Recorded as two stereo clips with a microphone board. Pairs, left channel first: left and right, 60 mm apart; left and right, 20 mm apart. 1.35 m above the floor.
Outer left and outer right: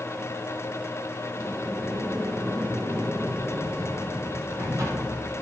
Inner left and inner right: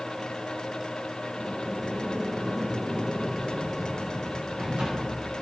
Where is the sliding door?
85° right, 5.5 m.